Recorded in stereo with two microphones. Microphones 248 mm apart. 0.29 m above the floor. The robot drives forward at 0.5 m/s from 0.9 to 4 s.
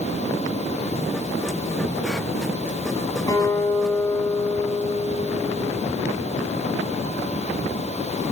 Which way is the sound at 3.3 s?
15° left (ahead or behind).